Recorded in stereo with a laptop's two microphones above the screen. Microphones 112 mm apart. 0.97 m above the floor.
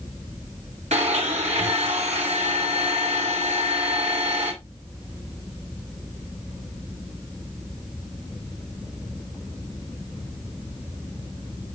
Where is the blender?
80° right, 3.5 m.